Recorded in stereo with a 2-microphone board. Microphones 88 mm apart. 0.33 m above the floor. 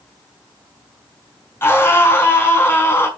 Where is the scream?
25° left (ahead or behind), 4 m.